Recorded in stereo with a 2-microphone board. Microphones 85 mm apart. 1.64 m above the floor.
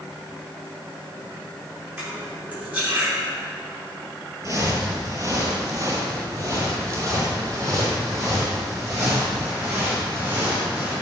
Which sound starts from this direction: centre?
Cutlery clinking, at 2.0 s.